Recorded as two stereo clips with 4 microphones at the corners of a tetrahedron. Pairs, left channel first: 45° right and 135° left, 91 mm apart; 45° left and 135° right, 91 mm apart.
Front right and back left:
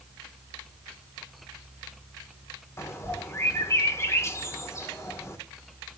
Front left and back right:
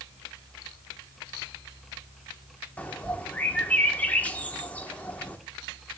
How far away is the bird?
About 1.2 m.